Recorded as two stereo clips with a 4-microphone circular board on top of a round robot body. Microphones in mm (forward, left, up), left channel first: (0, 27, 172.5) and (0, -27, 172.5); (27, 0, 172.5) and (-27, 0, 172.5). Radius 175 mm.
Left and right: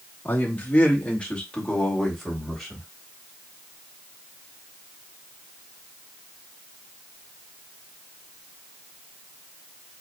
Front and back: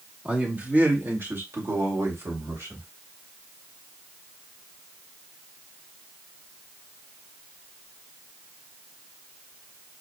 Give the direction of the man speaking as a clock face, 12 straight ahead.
8 o'clock.